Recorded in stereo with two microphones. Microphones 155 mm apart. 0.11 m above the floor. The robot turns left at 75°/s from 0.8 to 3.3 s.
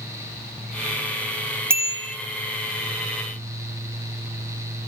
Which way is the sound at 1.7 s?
15° right.